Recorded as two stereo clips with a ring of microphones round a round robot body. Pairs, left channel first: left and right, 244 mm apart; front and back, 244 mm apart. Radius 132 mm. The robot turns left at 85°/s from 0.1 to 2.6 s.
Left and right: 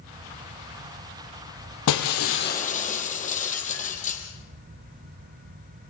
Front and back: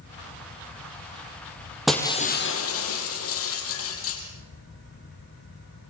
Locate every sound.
1.9 s breaking glass: 90° left, 4 m; by 4.2 s 30° left, 4 m